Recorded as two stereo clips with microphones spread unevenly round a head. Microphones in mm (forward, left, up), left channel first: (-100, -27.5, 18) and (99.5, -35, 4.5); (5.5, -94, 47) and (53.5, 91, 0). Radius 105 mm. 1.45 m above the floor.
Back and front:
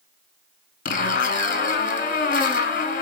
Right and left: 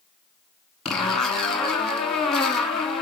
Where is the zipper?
170° right, 1.1 m.